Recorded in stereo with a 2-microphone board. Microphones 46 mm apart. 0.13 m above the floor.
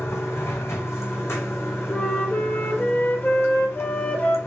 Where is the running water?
85° left, 1.0 m.